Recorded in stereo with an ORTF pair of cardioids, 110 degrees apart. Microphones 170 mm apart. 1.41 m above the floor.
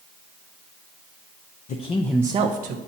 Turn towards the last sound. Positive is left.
turn(degrees=-70)